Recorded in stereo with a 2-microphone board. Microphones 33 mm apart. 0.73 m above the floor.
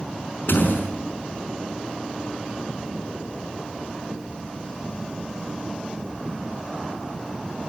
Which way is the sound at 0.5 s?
85° left.